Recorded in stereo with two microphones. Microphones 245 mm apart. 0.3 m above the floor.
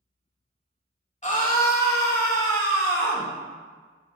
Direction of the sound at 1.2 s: 30° left (ahead or behind).